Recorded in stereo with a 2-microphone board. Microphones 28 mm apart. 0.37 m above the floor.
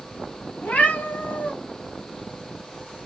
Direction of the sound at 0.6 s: 70° left (ahead or behind).